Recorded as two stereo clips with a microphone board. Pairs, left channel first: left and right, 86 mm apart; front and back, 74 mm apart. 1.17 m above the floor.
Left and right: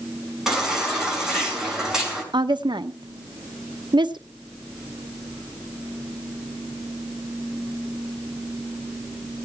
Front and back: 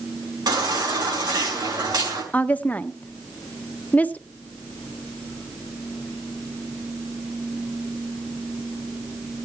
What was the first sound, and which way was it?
A baby crying, 175° right.